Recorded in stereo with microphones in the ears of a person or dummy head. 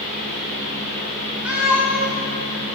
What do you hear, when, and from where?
0.0 s a fan: 70° right (ahead or behind), 4 m
1.4 s a cat meowing: 5° right (ahead or behind), 2 m